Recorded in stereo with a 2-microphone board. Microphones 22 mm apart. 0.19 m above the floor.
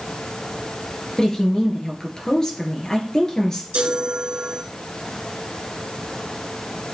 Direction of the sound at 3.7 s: 65° right (ahead or behind).